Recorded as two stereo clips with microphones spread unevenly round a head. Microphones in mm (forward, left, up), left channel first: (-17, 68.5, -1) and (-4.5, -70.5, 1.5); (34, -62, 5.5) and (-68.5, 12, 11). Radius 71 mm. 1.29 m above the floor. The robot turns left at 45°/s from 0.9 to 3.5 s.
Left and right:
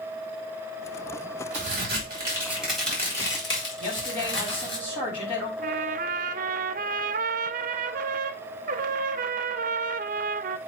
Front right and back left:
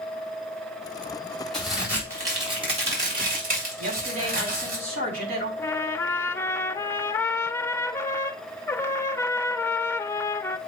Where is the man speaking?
150° left, 6.5 m.